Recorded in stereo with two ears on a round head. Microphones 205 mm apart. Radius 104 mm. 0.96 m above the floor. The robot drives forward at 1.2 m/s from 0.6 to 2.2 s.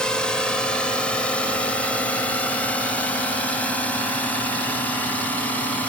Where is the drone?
5° left (ahead or behind).